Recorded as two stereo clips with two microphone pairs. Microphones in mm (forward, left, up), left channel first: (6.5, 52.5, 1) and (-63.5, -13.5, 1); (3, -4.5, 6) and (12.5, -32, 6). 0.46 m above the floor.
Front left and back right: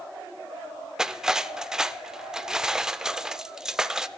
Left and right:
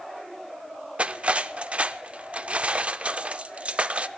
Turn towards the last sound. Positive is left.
turn(degrees=-60)